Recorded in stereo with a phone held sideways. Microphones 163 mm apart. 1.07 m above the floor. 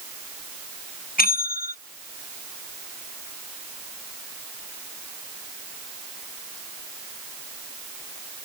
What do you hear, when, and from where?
1.2 s a bell: 60° left (ahead or behind)